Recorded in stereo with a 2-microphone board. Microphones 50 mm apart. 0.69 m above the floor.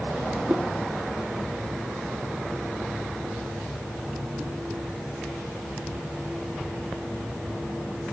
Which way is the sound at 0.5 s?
30° right (ahead or behind).